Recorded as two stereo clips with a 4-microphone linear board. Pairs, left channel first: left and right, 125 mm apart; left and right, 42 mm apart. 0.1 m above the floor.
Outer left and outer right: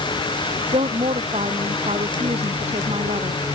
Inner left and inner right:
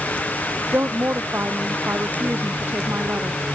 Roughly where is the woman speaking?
Right.